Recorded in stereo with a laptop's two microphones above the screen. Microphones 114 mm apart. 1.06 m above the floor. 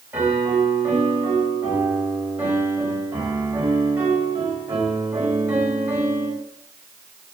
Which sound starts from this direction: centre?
A piano, at 0.1 s.